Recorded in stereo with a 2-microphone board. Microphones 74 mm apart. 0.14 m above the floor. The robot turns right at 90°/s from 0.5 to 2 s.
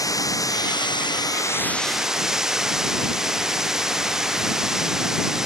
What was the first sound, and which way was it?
Running water, 50° left.